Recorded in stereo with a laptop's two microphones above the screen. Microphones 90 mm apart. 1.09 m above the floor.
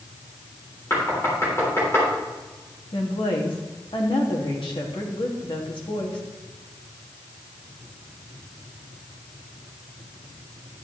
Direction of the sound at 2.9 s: 75° left (ahead or behind).